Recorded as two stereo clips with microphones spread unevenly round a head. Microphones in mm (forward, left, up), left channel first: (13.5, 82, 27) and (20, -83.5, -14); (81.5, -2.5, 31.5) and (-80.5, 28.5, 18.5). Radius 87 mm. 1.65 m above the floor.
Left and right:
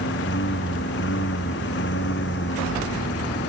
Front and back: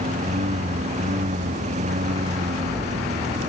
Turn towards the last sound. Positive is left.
turn(degrees=120)